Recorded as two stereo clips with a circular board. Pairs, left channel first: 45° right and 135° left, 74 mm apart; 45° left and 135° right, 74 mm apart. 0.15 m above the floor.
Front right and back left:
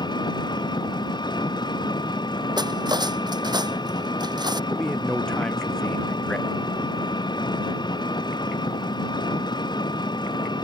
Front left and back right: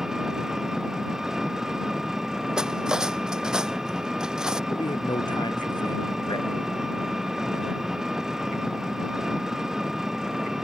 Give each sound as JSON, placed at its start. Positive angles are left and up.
{"t": 0.0, "sound": "an engine running", "azimuth_deg": -50}
{"t": 2.6, "sound": "cutlery clinking", "azimuth_deg": 145}
{"t": 4.7, "sound": "a man speaking", "azimuth_deg": 35}